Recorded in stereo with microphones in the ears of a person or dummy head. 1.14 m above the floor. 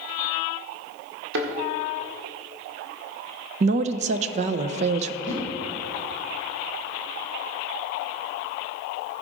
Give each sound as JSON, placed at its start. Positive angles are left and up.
{"t": 1.3, "sound": "a thud", "side_deg": -70, "distance_m": 1.6}
{"t": 3.6, "sound": "a woman speaking", "side_deg": -45, "distance_m": 0.6}
{"t": 5.2, "sound": "a whoosh", "side_deg": -70, "distance_m": 2.5}